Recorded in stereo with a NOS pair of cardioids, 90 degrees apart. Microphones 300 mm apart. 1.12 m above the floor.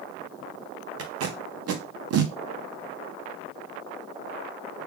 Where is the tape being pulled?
60° right, 0.7 m.